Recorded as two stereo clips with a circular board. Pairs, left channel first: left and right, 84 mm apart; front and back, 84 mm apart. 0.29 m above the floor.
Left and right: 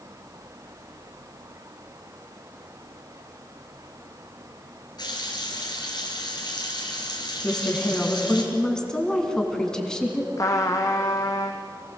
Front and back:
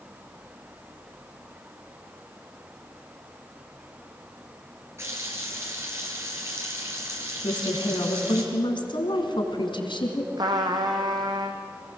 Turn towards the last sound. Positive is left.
turn(degrees=140)